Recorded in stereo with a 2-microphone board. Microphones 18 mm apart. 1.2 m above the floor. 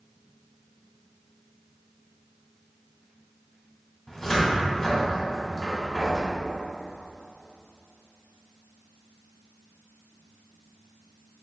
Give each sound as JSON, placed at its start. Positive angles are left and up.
{"t": 4.1, "sound": "a cupboard door", "side_deg": 20, "distance_m": 1.2}